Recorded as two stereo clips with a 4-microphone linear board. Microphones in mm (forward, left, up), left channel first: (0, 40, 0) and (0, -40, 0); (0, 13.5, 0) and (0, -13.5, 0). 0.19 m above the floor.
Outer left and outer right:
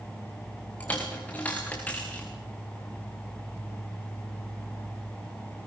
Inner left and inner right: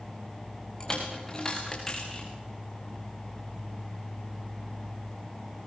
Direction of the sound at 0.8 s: 20° left (ahead or behind).